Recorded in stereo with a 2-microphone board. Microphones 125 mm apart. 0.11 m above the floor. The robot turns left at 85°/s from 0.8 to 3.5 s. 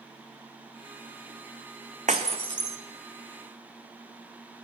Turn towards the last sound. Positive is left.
turn(degrees=140)